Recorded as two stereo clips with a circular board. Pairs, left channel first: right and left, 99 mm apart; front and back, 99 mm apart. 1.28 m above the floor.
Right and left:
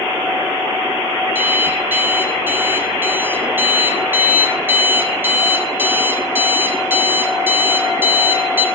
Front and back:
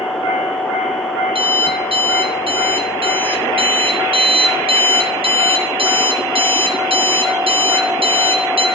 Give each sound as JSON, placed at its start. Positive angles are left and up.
{"t": 1.4, "sound": "an alarm clock", "azimuth_deg": 160, "distance_m": 1.5}